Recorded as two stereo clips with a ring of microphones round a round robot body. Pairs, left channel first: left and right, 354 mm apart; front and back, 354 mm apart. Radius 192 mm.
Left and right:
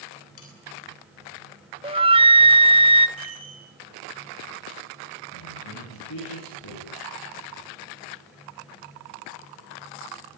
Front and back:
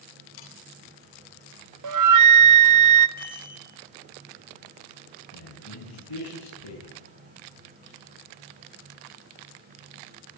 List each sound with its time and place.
0.4 s sawing: 35° left, 8 m
1.8 s a flute: 160° right, 1.1 m
3.2 s a chime: 65° right, 6.5 m
5.3 s a man speaking: 35° left, 9 m